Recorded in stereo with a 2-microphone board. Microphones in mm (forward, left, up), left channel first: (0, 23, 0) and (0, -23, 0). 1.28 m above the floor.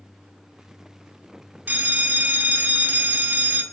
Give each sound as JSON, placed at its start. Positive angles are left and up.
{"t": 1.7, "sound": "a bell", "side_deg": -45, "distance_m": 1.1}